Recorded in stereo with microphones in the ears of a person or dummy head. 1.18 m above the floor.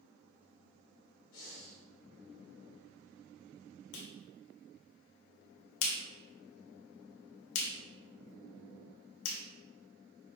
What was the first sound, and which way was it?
Breathing, 75° left (ahead or behind).